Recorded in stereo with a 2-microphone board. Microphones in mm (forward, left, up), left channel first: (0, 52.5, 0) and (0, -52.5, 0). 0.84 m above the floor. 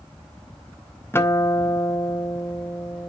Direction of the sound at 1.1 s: 20° left (ahead or behind).